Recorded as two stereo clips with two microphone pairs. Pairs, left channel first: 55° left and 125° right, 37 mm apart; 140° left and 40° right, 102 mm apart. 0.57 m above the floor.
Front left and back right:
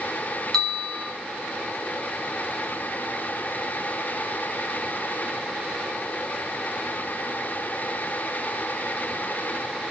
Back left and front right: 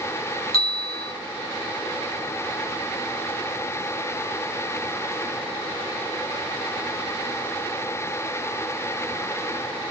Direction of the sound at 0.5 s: 140° left.